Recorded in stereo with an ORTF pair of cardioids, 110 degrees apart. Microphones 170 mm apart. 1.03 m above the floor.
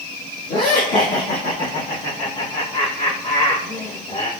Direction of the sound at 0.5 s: 65° left.